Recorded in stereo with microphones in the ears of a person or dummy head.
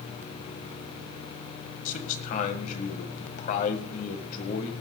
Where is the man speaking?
50° left (ahead or behind), 1.7 m.